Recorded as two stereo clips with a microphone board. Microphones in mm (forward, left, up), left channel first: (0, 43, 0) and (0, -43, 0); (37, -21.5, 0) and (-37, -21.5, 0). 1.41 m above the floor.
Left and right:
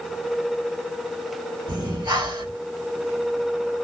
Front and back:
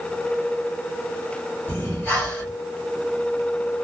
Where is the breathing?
75° right, 2.5 m.